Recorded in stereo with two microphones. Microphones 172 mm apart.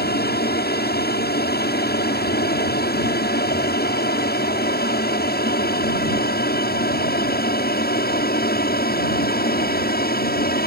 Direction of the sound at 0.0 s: 70° left (ahead or behind).